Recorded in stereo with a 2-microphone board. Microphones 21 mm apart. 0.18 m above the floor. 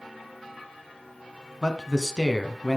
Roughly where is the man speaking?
Left.